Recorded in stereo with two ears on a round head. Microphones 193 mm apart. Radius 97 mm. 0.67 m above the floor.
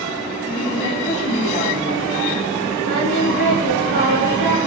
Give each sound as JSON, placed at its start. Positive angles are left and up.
{"t": 0.5, "sound": "a woman speaking", "side_deg": 15, "distance_m": 3.0}
{"t": 2.8, "sound": "singing", "side_deg": -60, "distance_m": 3.0}